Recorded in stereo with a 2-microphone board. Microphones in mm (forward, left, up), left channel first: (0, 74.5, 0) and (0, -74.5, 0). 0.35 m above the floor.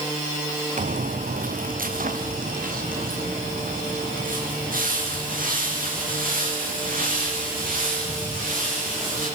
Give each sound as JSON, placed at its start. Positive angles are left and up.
{"t": 0.8, "sound": "footsteps", "side_deg": -70, "distance_m": 1.0}